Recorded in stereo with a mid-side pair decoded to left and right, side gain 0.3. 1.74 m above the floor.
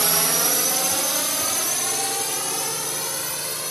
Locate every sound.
0.0 s a drone: 35° right; by 3.7 s 5° left